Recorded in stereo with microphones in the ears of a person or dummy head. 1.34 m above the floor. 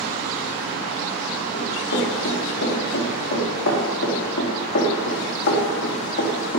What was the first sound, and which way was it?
Running footsteps, 75° left (ahead or behind).